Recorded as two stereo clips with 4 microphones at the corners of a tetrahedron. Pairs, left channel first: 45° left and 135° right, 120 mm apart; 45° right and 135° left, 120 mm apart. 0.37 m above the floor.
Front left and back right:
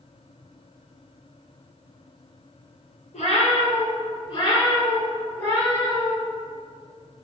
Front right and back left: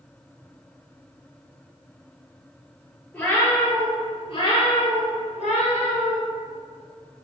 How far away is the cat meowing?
About 1.0 m.